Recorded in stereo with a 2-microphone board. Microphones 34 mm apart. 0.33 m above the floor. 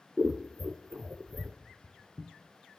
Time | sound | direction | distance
0.2 | scissors | 60° right (ahead or behind) | 0.6 m
1.6 | footsteps | 25° right (ahead or behind) | 1.0 m